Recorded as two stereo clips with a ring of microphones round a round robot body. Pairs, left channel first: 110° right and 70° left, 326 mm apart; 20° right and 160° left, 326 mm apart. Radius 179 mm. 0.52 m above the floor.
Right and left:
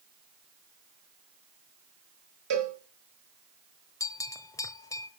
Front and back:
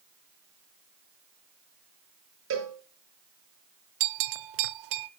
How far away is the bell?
About 0.6 m.